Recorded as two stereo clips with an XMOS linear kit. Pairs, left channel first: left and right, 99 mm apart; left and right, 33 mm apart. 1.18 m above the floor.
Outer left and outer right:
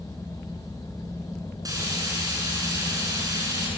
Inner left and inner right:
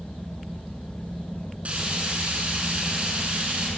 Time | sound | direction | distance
1.6 | frying | 40° right (ahead or behind) | 7 m